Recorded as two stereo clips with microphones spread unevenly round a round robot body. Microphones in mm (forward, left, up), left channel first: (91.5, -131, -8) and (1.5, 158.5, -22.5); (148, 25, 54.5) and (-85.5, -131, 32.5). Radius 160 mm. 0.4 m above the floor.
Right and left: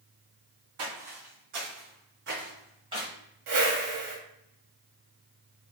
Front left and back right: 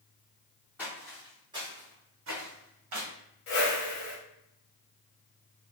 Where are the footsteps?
115° left, 1.3 m; by 3.1 s 170° right, 1.1 m.